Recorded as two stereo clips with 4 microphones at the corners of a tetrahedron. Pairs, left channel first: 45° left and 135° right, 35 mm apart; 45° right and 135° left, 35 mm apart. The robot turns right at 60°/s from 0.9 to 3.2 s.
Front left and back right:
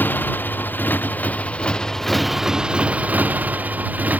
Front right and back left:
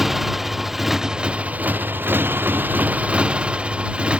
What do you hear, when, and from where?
0.0 s a motorcycle: 55° left; by 4.2 s 165° right